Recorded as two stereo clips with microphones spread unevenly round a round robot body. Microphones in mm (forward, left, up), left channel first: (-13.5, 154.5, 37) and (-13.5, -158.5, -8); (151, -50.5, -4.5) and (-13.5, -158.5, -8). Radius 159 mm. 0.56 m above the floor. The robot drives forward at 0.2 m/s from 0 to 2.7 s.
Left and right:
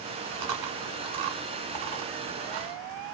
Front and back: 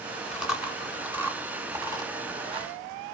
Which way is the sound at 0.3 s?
60° right.